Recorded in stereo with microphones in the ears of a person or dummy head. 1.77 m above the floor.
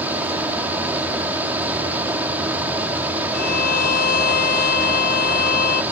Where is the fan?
10° right (ahead or behind).